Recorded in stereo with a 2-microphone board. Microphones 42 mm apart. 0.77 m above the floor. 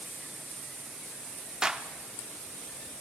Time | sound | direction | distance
1.6 | a clap | 20° right (ahead or behind) | 1.1 m